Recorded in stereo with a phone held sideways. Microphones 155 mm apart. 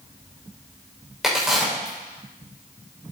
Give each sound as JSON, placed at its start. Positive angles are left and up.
{"t": 1.2, "sound": "a crack", "side_deg": 0, "distance_m": 5.0}